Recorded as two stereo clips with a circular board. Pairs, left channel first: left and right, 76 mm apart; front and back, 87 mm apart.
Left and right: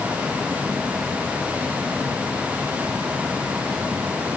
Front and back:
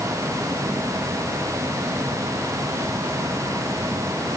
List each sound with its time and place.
Only background noise.